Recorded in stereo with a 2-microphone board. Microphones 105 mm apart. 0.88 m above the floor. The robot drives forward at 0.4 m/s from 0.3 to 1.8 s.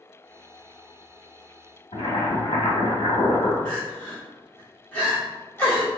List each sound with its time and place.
1.9 s boiling: 65° left (ahead or behind), 1.1 m
3.6 s crying: 15° left (ahead or behind), 1.6 m